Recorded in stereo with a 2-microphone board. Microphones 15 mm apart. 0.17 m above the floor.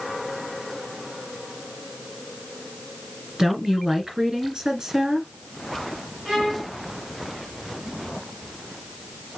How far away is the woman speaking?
About 2 m.